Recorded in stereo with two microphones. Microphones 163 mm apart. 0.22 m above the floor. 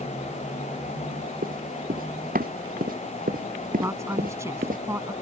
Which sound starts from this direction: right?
Running footsteps, at 1.4 s.